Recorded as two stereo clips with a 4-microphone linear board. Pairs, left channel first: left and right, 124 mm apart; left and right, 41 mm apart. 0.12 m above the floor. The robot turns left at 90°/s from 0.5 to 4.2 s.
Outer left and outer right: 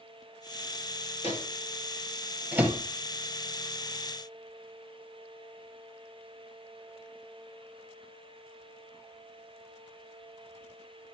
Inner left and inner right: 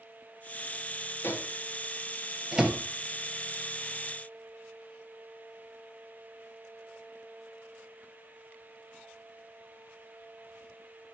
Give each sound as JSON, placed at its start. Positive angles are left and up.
{"t": 1.2, "sound": "a microwave", "side_deg": 60, "distance_m": 2.0}